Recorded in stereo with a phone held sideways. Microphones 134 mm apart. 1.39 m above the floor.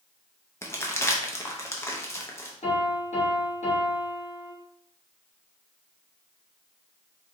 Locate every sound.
0.6 s crumpling: 20° left (ahead or behind), 0.6 m
2.6 s a piano: 55° left (ahead or behind), 1.7 m